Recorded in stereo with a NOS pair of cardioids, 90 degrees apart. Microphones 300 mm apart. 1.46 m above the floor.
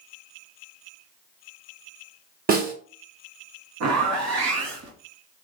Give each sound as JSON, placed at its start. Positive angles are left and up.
{"t": 2.5, "sound": "a snare drum", "azimuth_deg": -30, "distance_m": 1.3}
{"t": 3.8, "sound": "a zipper", "azimuth_deg": -70, "distance_m": 1.2}